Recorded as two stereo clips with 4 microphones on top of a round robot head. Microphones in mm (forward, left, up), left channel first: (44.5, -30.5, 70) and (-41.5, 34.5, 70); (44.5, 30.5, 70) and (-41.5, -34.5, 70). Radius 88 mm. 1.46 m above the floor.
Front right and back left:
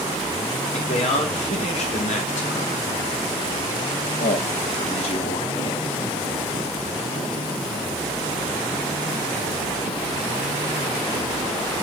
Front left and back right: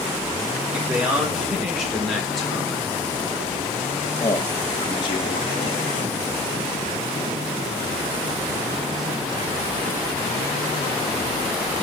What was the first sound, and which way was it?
A man speaking, 60° right.